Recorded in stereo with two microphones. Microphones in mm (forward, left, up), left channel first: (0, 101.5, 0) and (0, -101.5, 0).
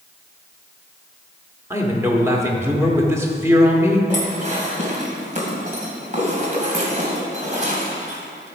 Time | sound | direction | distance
1.7 | a man speaking | 15° right (ahead or behind) | 1.2 m
4.1 | dishes clattering | 40° right (ahead or behind) | 2 m